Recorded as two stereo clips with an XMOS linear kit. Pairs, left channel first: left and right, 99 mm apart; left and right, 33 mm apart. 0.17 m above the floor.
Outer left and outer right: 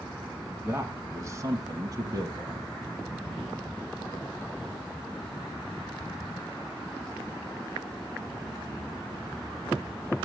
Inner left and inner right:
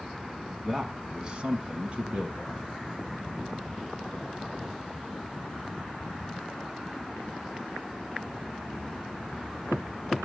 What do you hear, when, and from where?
0.5 s a man speaking: 20° right (ahead or behind), 1.1 m; by 2.7 s 45° right (ahead or behind), 1.7 m